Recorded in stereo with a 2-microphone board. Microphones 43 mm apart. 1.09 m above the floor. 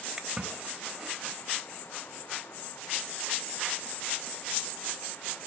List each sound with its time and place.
0.2 s a splash: 15° right (ahead or behind), 1.3 m